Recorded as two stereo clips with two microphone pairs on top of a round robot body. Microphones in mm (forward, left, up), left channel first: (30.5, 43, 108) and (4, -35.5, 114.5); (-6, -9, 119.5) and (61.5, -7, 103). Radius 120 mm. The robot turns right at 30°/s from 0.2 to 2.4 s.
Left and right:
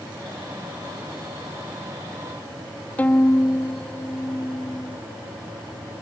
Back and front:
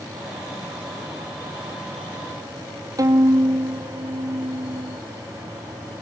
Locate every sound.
3.0 s a violin: 5° left